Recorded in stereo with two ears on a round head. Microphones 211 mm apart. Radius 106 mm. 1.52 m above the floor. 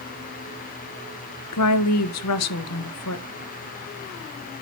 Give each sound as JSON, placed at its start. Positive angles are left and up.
{"t": 1.5, "sound": "a woman speaking", "side_deg": 75, "distance_m": 1.1}